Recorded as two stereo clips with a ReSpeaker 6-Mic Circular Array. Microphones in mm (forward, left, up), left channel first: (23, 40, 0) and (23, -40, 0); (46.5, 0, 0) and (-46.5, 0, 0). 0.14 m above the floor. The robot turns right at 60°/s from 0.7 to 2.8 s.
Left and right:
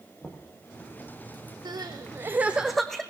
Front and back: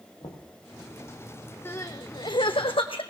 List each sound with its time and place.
0.2 s knocking: 15° left, 3.5 m
1.6 s crying: 65° right, 1.5 m; by 3.0 s 5° left, 1.5 m